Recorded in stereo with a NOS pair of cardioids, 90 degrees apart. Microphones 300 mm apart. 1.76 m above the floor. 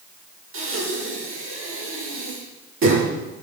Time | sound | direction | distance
0.5 | breathing | 45° right | 8 m